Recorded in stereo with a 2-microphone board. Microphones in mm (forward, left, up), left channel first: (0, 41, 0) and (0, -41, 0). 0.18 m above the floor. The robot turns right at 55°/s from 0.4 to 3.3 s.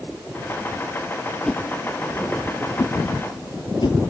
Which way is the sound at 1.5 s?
5° left (ahead or behind).